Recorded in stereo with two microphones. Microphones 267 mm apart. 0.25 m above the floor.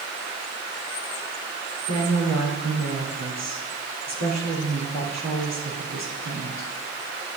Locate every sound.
1.9 s a woman speaking: 75° right (ahead or behind), 4 m